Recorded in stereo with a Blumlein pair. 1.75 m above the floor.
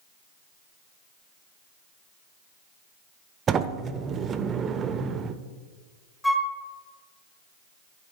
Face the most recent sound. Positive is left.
turn(degrees=5)